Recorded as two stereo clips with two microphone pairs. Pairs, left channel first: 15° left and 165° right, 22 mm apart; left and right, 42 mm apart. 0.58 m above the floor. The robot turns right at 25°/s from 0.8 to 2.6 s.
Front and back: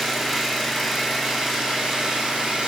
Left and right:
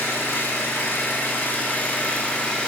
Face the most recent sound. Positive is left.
turn(degrees=160)